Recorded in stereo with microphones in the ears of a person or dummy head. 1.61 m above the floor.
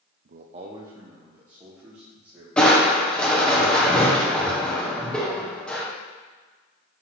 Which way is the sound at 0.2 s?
55° right (ahead or behind).